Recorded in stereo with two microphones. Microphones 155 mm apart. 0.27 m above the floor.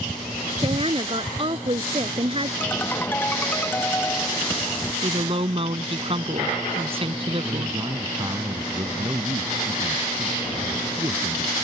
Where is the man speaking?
30° right (ahead or behind).